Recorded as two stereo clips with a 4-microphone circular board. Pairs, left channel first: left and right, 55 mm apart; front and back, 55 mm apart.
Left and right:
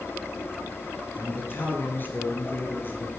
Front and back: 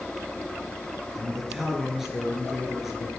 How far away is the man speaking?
About 1.7 m.